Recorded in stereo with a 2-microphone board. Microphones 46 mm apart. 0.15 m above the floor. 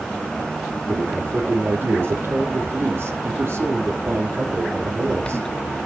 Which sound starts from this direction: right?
A man speaking, at 0.9 s.